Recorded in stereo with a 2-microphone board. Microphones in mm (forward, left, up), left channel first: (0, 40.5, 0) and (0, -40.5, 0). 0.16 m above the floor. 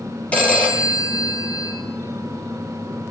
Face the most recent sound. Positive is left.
turn(degrees=20)  # may be behind; listen again after turning